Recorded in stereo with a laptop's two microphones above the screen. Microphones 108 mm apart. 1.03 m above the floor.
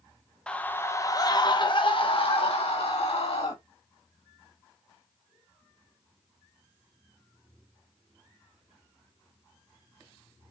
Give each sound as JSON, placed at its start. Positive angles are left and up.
{"t": 0.5, "sound": "a scream", "side_deg": 10, "distance_m": 0.8}